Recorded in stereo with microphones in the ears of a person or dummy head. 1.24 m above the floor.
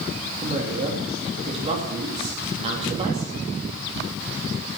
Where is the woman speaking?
35° right (ahead or behind), 2.5 m.